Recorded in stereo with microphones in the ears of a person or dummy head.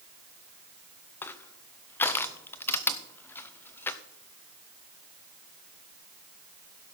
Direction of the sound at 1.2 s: 20° left (ahead or behind).